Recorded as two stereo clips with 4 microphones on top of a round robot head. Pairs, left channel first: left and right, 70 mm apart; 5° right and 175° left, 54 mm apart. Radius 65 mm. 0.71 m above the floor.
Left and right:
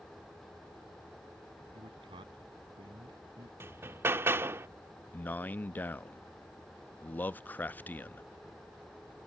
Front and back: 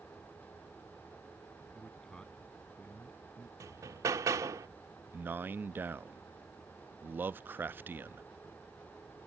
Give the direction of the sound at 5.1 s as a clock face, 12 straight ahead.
7 o'clock.